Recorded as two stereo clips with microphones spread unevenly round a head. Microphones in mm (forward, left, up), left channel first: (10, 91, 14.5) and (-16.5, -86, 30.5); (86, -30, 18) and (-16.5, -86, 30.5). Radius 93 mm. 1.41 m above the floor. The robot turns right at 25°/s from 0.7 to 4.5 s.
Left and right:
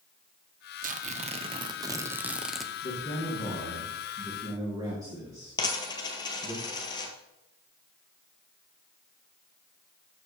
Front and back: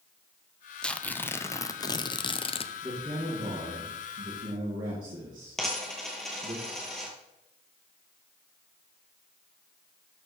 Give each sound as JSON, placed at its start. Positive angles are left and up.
{"t": 0.8, "sound": "tearing paper", "azimuth_deg": -50, "distance_m": 0.7}
{"t": 2.8, "sound": "a man speaking", "azimuth_deg": 145, "distance_m": 2.5}
{"t": 5.6, "sound": "a dropped coin", "azimuth_deg": 125, "distance_m": 1.5}